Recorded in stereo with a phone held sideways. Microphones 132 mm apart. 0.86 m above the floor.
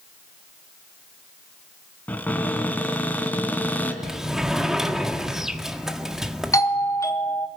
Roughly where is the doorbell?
Left.